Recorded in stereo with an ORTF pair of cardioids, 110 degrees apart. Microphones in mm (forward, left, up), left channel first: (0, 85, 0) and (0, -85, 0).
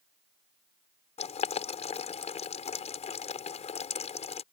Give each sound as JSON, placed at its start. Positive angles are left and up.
{"t": 1.2, "sound": "boiling", "azimuth_deg": 40}